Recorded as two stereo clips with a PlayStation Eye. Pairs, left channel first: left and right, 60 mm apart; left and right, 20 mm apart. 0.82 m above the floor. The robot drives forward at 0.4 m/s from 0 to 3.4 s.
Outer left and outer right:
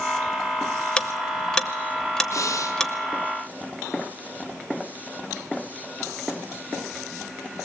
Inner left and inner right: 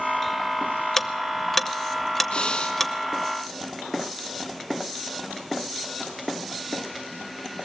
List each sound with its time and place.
1.0 s ticking: 15° left (ahead or behind), 0.6 m; by 2.9 s 10° left (ahead or behind), 1.1 m
2.3 s breathing: 60° left (ahead or behind), 1.6 m